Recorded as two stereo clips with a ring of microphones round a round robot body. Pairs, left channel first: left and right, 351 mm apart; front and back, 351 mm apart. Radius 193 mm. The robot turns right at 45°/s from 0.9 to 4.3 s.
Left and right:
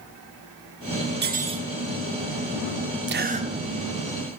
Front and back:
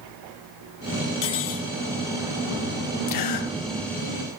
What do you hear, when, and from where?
1.2 s cutlery clinking: 30° right, 1.0 m; by 1.7 s 5° right, 1.0 m
3.1 s a gasp: 35° right, 0.7 m; by 4.4 s 20° left, 0.7 m